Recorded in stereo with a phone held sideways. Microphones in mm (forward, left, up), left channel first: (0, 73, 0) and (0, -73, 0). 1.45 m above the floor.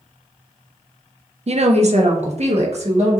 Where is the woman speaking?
45° right (ahead or behind), 0.5 m; by 3.2 s 50° right (ahead or behind), 1.5 m.